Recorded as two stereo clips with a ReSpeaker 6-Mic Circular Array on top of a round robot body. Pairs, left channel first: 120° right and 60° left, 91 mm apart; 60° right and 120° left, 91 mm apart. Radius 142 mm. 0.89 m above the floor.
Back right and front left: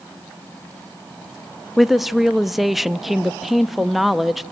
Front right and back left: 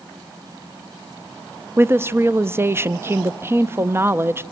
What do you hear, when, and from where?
1.8 s a woman speaking: 145° left, 0.7 m